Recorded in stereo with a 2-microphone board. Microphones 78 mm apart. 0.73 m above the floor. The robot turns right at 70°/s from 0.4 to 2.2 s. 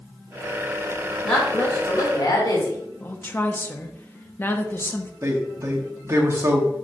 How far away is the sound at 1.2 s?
About 3 m.